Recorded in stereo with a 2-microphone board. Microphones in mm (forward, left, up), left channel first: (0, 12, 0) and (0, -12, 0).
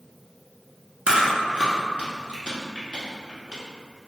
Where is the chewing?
50° right (ahead or behind), 1.0 m.